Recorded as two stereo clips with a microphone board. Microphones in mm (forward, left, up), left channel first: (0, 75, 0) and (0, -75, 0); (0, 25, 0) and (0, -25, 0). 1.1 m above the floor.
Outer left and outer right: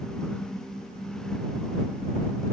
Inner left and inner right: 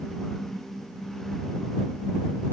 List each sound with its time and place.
Only background noise.